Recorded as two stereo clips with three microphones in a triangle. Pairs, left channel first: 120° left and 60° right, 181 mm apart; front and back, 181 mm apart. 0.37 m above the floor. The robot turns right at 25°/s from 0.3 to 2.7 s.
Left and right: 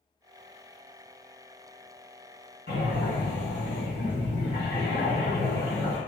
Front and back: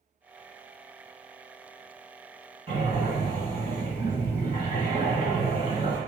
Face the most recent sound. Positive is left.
turn(degrees=125)